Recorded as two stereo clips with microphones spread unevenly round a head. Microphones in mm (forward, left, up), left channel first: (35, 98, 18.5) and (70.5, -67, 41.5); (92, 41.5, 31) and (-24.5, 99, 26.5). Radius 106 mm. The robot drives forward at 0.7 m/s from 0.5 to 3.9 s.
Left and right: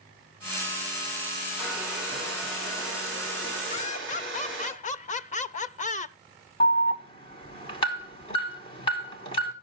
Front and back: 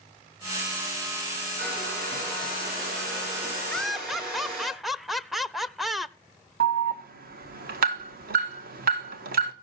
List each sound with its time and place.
1.6 s a hair dryer: 165° right, 4 m; by 4.7 s 170° right, 5.5 m
3.7 s laughter: 55° left, 0.9 m; by 6.2 s 65° left, 0.8 m
6.6 s an alarm: 170° left, 1.4 m